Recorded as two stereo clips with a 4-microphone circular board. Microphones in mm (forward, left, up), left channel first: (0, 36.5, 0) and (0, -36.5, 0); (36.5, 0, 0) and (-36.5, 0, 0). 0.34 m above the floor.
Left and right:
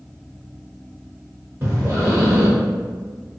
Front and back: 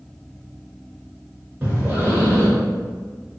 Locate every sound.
1.6 s breathing: 120° right, 1.3 m